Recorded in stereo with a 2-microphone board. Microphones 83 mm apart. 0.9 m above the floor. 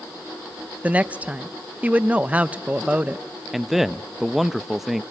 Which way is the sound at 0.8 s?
15° right (ahead or behind).